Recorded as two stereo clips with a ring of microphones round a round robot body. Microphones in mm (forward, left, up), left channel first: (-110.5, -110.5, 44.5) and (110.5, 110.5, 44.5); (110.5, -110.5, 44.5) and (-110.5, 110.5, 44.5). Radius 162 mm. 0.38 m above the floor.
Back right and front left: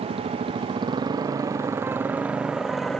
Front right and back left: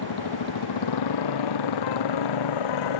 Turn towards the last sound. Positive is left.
turn(degrees=-45)